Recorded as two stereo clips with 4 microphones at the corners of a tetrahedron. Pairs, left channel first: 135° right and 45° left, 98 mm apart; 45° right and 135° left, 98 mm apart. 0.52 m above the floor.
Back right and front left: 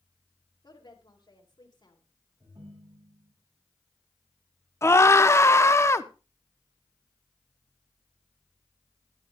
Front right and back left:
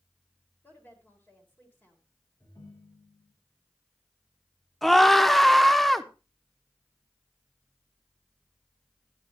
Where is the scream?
130° right, 0.7 m.